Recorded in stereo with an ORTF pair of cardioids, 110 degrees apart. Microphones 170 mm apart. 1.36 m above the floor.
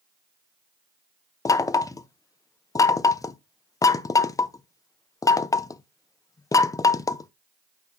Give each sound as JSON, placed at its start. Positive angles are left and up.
{"t": 1.4, "sound": "knocking", "azimuth_deg": 20, "distance_m": 0.6}